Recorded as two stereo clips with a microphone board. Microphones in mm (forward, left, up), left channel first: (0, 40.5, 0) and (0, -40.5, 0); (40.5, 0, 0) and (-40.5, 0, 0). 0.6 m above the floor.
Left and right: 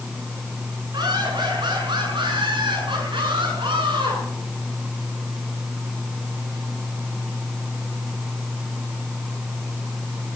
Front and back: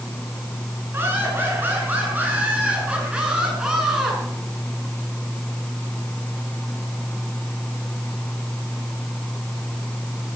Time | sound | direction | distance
0.9 | laughter | 120° right | 8.5 m